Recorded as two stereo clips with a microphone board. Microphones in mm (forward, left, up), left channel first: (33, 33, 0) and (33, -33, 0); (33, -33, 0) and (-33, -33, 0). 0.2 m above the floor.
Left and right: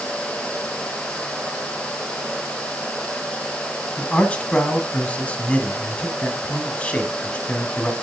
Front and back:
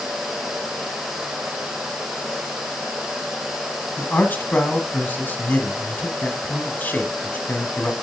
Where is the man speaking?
35° left, 1.2 m.